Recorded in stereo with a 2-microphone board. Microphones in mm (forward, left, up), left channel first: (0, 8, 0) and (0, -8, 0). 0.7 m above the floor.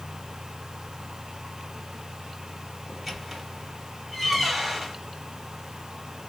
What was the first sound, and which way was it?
A squeak, 5° right (ahead or behind).